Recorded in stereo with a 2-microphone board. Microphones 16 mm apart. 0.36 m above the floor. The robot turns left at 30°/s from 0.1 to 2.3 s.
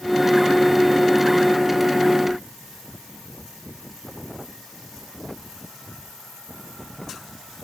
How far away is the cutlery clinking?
I don't hear cutlery clinking.